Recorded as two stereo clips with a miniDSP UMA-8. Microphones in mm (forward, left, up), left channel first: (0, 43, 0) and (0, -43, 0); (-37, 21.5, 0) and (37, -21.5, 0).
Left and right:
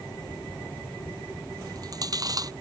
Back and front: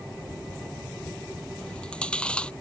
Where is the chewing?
130° right.